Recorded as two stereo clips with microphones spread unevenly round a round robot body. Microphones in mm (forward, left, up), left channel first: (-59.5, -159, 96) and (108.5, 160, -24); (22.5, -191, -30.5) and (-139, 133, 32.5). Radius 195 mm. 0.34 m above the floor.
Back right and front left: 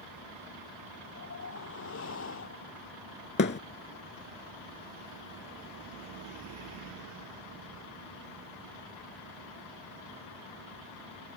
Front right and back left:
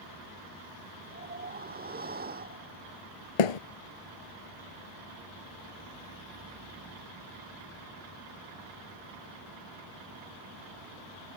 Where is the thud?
55° right.